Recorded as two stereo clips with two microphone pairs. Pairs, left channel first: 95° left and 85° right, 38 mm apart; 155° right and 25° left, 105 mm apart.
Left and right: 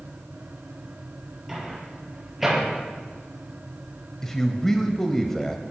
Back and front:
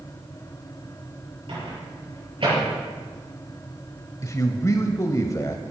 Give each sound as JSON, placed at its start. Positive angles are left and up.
{"t": 1.5, "sound": "a microwave", "azimuth_deg": -5, "distance_m": 6.5}
{"t": 4.2, "sound": "a man speaking", "azimuth_deg": 170, "distance_m": 1.1}